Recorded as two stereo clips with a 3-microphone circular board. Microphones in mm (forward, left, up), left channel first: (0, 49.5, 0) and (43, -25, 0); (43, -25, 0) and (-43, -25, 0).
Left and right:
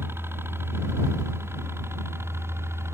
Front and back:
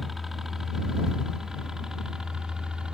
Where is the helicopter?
95° right; by 2.9 s 105° right.